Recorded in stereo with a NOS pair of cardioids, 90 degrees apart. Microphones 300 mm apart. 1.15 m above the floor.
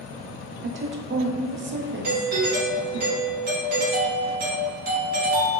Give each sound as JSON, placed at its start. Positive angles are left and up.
{"t": 0.6, "sound": "a woman speaking", "azimuth_deg": -40, "distance_m": 0.6}
{"t": 2.0, "sound": "a doorbell", "azimuth_deg": -30, "distance_m": 1.2}